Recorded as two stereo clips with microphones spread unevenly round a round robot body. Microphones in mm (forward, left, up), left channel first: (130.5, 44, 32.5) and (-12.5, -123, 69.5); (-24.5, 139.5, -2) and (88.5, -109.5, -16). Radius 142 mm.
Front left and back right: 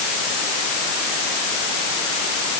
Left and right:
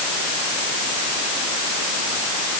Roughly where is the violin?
No violin in this recording.